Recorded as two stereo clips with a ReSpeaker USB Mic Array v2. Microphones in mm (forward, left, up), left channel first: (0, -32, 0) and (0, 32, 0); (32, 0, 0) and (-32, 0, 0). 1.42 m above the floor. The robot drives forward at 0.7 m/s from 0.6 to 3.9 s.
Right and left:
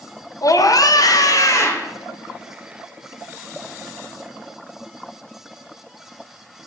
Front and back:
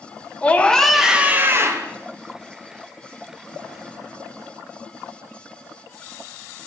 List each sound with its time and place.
0.4 s a scream: 70° right, 0.7 m; by 1.9 s 140° right, 1.0 m